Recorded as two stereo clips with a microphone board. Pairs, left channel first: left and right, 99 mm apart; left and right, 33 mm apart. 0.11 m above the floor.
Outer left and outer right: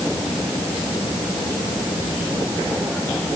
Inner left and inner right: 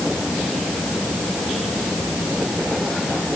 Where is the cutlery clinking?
No cutlery clinking in this recording.